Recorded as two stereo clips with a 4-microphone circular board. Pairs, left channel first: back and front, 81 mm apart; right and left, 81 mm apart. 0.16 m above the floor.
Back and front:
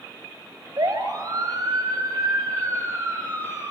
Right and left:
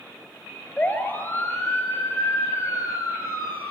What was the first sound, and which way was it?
A siren, 25° right.